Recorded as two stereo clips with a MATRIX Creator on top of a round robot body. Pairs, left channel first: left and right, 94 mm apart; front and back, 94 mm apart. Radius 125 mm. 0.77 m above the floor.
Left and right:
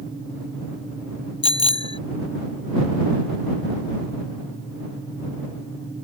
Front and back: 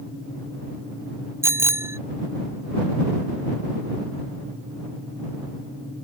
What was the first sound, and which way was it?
A bicycle bell, 115° left.